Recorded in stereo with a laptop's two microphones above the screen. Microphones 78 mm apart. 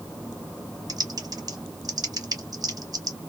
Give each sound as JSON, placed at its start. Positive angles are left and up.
{"t": 0.9, "sound": "typing on a keyboard", "side_deg": -50, "distance_m": 1.0}